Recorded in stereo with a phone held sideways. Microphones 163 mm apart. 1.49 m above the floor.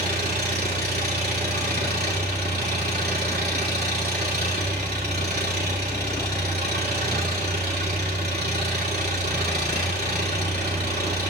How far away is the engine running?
About 2.5 m.